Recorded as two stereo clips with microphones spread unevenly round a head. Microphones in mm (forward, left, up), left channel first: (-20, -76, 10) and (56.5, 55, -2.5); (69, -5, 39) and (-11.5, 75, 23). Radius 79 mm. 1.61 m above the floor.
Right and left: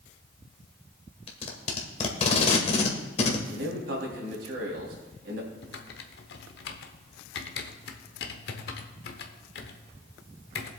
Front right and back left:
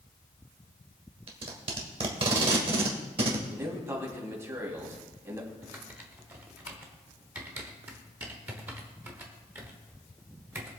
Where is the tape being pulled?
175° right, 1.5 m.